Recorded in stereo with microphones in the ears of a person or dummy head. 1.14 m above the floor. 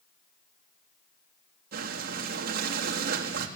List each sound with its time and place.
1.7 s breathing: 55° right (ahead or behind), 1.7 m